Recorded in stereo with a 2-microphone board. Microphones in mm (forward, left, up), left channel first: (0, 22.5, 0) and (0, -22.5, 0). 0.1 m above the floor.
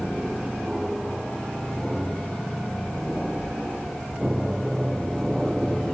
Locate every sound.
0.0 s an aircraft: 10° right (ahead or behind)